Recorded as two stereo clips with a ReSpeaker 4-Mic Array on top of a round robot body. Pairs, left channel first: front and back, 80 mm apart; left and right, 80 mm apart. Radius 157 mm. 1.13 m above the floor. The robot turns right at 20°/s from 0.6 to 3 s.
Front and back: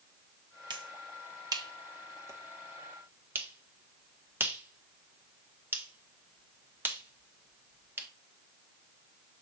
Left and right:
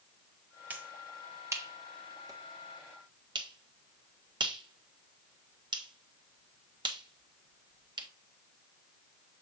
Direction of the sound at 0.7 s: 160° right.